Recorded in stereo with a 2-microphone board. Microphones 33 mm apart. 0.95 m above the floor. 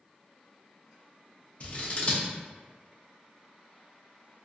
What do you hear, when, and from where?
1.6 s scissors: 40° left (ahead or behind), 0.6 m